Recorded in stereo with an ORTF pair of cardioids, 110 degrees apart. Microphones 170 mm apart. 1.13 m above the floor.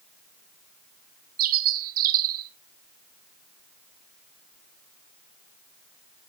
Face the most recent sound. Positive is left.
turn(degrees=-60)